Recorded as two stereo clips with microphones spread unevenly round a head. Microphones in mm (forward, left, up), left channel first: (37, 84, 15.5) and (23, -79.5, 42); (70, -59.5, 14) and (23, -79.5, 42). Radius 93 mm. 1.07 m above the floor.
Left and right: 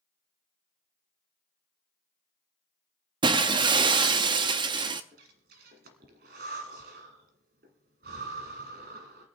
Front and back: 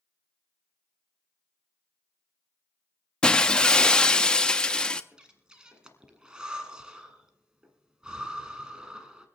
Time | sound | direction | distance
3.2 | breaking glass | 90° right | 0.5 m
5.1 | breathing | 110° right | 1.6 m